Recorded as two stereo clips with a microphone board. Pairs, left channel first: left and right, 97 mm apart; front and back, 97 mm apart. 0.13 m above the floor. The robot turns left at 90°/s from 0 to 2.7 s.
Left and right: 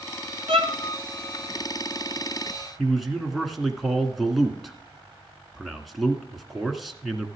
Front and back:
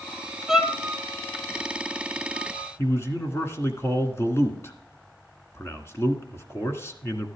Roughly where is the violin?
Right.